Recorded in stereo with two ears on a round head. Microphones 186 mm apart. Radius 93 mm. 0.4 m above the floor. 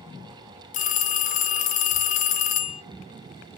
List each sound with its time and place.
0.7 s a phone ringing: 40° left (ahead or behind), 0.5 m